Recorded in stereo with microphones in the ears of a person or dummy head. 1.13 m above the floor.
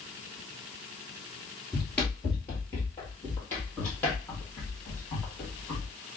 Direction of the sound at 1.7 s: 5° left (ahead or behind).